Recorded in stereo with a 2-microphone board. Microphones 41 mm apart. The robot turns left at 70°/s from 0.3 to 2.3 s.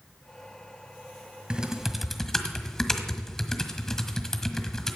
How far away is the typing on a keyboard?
About 1.5 m.